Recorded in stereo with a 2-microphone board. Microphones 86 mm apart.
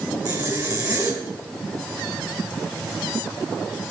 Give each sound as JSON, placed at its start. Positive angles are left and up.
{"t": 0.2, "sound": "a zipper", "side_deg": -40, "distance_m": 2.0}